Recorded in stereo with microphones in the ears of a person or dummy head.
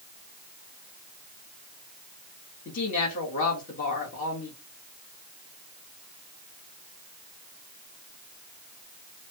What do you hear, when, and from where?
2.6 s a woman speaking: 45° left (ahead or behind), 2 m